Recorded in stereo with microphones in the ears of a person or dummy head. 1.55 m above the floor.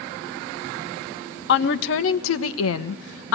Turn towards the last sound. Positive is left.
turn(degrees=70)  # may be behind; listen again after turning